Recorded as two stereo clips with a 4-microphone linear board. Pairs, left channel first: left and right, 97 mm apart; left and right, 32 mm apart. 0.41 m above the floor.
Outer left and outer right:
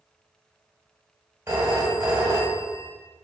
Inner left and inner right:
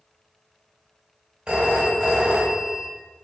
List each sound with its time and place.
1.5 s a phone ringing: 25° right (ahead or behind), 1.0 m